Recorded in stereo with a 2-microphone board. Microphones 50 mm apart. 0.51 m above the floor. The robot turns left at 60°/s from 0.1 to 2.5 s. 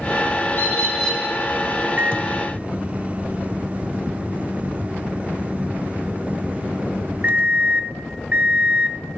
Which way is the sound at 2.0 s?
95° right.